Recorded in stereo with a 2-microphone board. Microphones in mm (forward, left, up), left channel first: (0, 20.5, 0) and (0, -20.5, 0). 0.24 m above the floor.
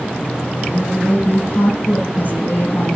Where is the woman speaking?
50° left (ahead or behind), 10 m.